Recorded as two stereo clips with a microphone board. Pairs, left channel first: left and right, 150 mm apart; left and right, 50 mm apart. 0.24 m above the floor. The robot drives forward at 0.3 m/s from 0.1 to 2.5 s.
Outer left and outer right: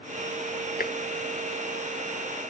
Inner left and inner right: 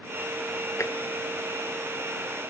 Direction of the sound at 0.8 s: 75° left (ahead or behind).